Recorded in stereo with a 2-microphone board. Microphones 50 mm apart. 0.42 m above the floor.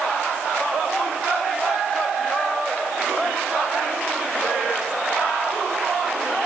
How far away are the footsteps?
I don't hear footsteps.